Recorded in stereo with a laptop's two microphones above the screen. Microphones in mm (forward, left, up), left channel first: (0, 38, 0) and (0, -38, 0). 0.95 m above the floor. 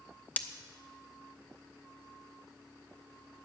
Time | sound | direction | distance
0.4 | breaking glass | 20° left (ahead or behind) | 0.6 m